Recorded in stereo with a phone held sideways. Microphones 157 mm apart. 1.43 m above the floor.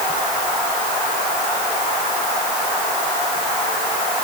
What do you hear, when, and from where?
Only background noise.